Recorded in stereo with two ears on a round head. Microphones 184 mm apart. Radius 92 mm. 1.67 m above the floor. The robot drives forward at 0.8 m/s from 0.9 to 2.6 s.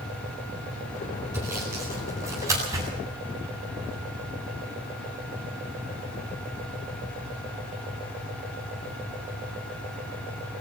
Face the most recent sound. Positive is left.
turn(degrees=-15)  # may be behind; listen again after turning